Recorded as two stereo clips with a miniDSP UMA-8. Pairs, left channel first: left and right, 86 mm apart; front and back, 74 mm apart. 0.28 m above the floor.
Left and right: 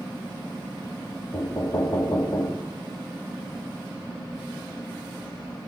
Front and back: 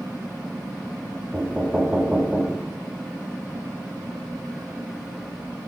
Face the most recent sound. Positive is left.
turn(degrees=110)